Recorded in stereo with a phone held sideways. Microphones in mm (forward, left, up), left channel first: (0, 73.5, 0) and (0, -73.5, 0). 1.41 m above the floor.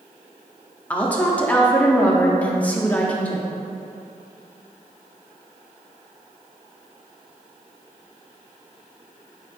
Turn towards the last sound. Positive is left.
turn(degrees=10)  # may be behind; listen again after turning